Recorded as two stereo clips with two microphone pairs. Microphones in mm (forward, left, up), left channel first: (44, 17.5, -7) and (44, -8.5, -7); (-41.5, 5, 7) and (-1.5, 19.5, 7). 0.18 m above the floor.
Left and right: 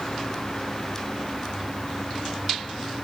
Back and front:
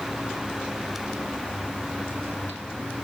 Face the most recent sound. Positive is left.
No sound to turn to.